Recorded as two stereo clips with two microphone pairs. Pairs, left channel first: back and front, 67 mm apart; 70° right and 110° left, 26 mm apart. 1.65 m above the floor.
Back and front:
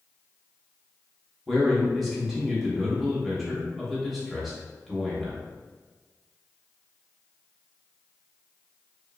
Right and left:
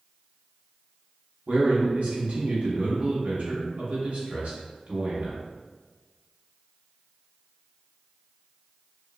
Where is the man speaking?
90° left, 1.3 m.